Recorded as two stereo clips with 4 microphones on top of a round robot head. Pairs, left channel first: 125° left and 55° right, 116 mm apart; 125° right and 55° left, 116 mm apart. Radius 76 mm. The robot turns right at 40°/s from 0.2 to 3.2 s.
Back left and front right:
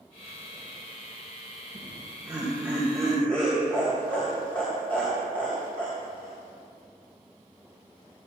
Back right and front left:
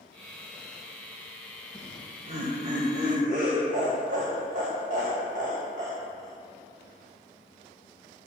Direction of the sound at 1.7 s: 10° right.